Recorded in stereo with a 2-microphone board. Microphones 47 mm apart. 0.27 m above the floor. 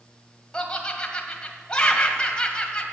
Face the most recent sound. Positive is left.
turn(degrees=15)  # may be behind; listen again after turning